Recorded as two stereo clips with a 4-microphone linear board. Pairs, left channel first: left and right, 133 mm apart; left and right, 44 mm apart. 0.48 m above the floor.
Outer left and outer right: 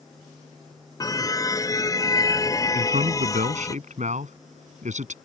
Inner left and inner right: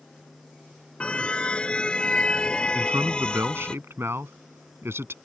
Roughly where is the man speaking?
Right.